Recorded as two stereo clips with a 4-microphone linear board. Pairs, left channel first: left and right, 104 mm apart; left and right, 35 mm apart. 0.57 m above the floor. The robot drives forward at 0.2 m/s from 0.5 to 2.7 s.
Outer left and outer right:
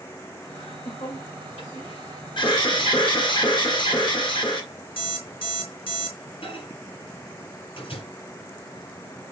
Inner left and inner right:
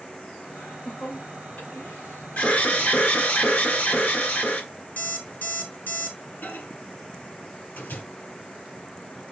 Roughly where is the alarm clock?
Left.